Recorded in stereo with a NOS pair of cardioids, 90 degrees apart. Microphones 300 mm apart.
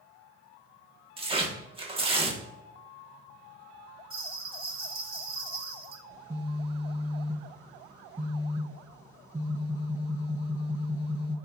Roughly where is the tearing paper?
Ahead.